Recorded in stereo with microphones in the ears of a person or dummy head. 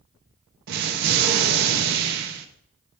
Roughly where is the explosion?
Right.